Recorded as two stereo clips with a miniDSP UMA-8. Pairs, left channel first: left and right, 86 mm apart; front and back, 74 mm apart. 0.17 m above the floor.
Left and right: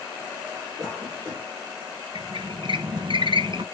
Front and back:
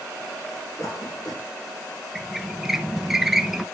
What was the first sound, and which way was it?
A cough, 35° right.